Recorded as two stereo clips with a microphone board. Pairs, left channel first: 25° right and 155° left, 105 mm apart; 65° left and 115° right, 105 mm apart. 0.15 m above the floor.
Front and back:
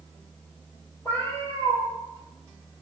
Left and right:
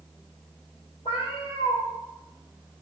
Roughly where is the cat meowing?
Ahead left.